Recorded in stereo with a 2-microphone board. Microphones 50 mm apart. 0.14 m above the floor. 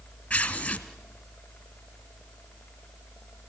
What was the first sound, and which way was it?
Tearing paper, 25° left (ahead or behind).